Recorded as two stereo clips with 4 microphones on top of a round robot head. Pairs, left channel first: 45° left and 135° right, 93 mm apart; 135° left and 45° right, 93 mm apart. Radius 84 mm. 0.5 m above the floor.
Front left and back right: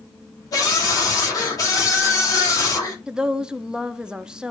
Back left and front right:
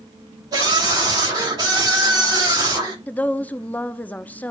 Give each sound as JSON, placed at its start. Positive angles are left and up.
{"t": 0.5, "sound": "a scream", "azimuth_deg": -5, "distance_m": 3.0}
{"t": 3.1, "sound": "a woman speaking", "azimuth_deg": 165, "distance_m": 0.7}